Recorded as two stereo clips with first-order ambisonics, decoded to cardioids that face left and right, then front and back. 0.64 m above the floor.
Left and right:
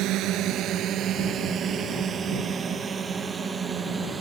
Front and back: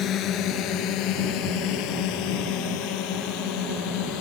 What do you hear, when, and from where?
0.0 s a drone: 50° right; by 4.2 s 10° right